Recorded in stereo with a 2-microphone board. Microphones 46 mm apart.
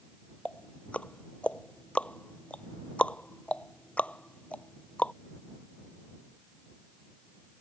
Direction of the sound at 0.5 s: 30° left (ahead or behind).